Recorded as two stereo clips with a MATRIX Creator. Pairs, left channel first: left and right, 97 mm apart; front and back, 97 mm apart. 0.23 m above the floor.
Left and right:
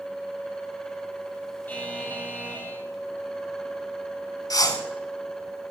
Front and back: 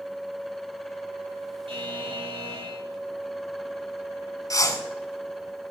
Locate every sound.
1.7 s a buzzer: 160° left, 4 m
4.5 s a whoosh: 45° left, 1.3 m